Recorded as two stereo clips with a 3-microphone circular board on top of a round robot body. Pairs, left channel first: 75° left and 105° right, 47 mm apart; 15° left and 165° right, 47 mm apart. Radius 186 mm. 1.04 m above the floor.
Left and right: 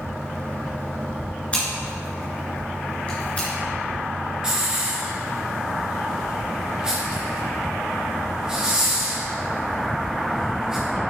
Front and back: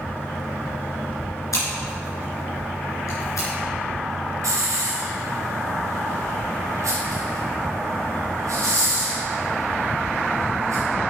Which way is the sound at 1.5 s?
10° left.